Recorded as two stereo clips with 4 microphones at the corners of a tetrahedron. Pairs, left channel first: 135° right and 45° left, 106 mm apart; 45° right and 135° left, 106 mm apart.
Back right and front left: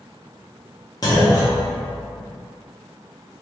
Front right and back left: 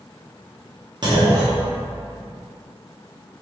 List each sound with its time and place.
1.0 s a clunk: 175° left, 0.7 m